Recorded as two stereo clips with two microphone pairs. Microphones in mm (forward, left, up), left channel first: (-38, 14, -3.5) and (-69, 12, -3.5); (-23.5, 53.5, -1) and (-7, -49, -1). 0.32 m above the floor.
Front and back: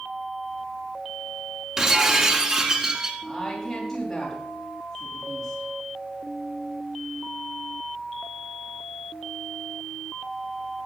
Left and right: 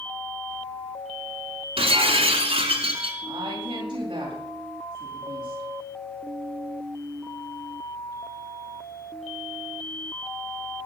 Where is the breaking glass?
105° right, 1.9 m.